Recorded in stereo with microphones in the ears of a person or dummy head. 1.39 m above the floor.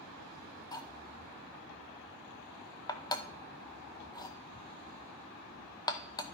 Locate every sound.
0.7 s cutlery clinking: 20° left (ahead or behind), 0.6 m